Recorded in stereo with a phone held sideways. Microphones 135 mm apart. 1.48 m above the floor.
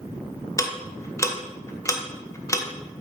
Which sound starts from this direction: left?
Ticking, at 0.6 s.